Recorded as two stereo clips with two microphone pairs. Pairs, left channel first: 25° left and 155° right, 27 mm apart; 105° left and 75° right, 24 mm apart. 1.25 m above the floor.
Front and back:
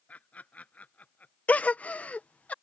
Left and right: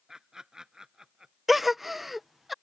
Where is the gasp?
10° left.